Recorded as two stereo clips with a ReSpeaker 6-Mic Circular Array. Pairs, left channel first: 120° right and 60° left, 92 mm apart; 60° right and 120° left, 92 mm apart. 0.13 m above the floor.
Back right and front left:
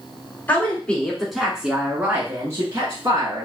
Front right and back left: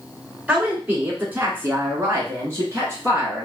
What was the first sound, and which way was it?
A woman speaking, 175° right.